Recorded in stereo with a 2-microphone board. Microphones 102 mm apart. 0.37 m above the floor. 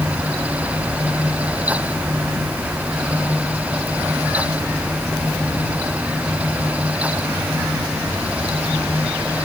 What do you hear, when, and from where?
Only background noise.